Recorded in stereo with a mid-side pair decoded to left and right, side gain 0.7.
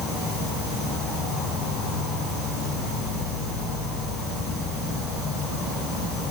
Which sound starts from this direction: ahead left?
An insect, at 0.0 s.